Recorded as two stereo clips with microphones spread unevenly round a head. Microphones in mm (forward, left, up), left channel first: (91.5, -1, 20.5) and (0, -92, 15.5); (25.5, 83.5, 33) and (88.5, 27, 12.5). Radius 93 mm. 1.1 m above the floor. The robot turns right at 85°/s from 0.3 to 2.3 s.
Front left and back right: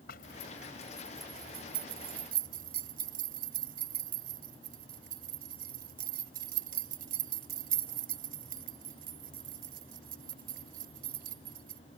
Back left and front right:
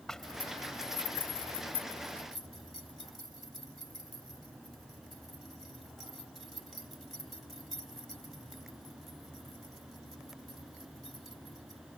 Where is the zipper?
55° left; by 11.8 s 135° right.